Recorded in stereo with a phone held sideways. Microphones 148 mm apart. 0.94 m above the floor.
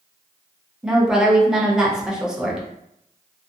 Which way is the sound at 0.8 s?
5° right (ahead or behind).